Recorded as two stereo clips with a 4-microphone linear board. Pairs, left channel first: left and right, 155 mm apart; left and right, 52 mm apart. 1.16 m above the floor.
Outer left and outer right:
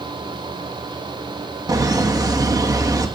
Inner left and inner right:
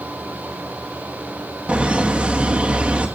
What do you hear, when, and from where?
1.7 s laughter: 25° right (ahead or behind), 1.7 m